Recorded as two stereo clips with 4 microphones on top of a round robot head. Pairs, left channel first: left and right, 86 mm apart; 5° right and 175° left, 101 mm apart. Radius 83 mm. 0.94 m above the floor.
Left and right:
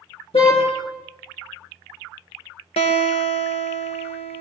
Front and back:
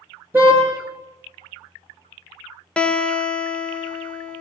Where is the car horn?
105° left, 8.5 m.